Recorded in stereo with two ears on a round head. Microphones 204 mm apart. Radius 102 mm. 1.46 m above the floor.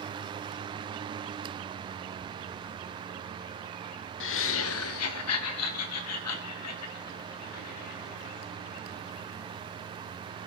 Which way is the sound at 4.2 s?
55° left (ahead or behind).